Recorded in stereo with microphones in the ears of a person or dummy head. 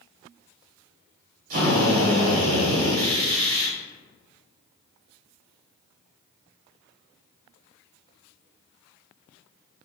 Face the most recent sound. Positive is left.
turn(degrees=-50)  # may be behind; listen again after turning